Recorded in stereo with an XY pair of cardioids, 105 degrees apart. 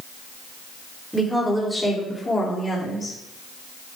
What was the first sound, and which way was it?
A woman speaking, straight ahead.